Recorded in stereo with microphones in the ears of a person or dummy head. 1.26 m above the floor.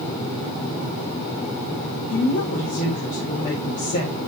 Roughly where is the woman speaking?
Left.